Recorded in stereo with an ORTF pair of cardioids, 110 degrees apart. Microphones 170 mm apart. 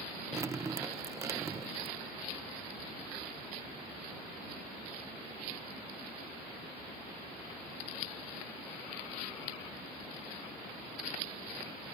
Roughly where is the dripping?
Ahead.